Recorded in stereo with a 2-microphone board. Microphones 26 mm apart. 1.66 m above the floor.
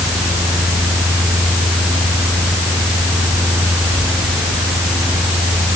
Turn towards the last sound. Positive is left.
No sound to turn to.